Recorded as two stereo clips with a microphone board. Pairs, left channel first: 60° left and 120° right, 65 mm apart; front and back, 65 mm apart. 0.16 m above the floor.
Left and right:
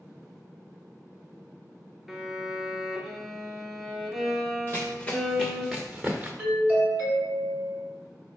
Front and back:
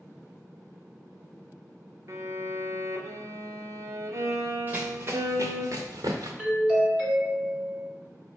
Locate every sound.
2.1 s a violin: 150° left, 0.6 m
4.7 s running footsteps: 115° left, 0.8 m; by 6.3 s 175° left, 1.0 m
6.4 s a doorbell: 110° right, 1.5 m